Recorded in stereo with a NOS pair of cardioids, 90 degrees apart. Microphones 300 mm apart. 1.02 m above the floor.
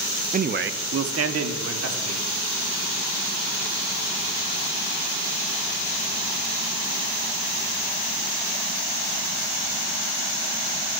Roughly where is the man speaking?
Ahead right.